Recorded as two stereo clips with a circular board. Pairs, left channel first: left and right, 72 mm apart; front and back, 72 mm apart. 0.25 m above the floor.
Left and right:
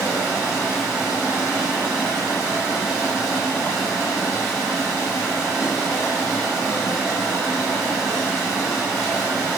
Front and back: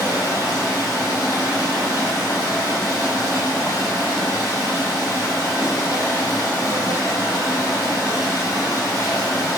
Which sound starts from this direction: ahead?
Running water, at 0.0 s.